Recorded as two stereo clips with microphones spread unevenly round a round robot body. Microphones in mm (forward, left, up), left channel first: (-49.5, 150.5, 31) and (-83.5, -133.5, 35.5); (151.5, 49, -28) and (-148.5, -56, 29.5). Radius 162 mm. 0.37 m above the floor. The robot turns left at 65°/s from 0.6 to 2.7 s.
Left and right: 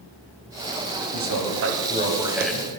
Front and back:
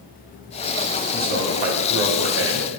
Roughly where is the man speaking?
Right.